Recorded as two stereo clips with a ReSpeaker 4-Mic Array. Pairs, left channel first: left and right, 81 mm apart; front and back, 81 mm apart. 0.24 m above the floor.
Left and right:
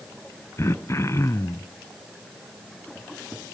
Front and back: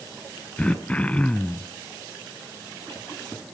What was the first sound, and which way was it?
Throat clearing, 65° left.